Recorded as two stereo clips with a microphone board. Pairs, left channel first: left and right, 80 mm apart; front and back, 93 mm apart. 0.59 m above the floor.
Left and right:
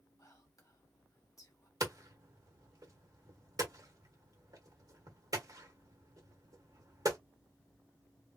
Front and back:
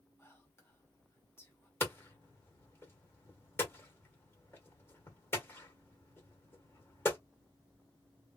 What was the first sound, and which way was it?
Whispering, 55° left.